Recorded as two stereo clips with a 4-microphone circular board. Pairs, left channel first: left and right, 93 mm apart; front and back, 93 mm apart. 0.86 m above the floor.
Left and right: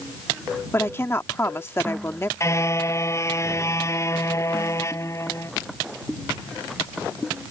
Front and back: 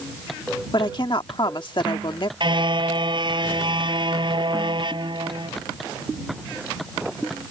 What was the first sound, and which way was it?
A woman speaking, 30° left.